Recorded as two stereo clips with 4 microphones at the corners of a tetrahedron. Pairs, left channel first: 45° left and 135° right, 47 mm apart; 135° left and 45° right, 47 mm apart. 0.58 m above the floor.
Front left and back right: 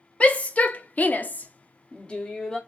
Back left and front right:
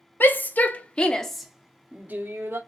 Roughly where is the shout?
Left.